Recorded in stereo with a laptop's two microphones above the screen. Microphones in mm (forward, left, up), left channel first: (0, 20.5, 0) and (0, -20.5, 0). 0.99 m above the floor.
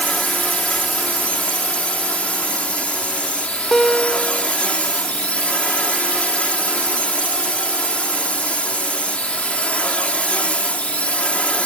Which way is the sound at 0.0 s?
25° left (ahead or behind).